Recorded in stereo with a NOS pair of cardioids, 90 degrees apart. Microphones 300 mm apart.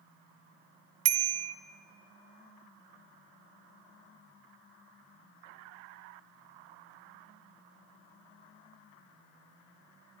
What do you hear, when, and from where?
1.1 s a bicycle bell: 65° right, 2.5 m